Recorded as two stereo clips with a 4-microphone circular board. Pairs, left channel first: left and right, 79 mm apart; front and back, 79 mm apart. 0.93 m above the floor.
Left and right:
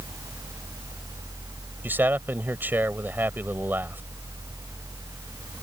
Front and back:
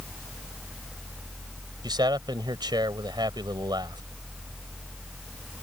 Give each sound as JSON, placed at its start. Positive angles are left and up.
{"t": 1.8, "sound": "a man speaking", "azimuth_deg": -155}